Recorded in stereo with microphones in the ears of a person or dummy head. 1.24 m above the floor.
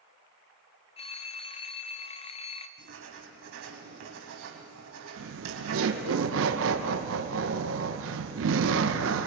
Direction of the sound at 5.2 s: 70° right (ahead or behind).